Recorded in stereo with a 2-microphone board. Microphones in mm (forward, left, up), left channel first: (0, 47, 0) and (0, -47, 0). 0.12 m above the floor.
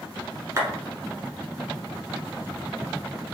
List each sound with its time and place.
0.6 s a clap: 30° right (ahead or behind), 1.2 m